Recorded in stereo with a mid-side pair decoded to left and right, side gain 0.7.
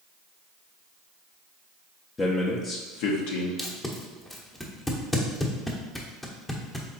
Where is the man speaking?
25° left, 0.7 m; by 3.5 s 80° left, 1.0 m.